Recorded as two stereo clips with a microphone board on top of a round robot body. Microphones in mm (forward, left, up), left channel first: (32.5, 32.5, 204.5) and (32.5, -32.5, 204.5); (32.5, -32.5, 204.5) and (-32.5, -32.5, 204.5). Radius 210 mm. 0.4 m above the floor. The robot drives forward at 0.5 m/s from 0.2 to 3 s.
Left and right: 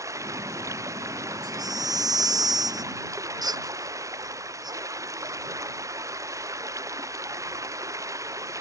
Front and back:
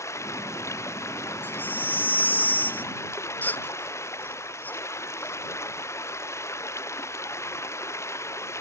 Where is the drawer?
I don't hear a drawer.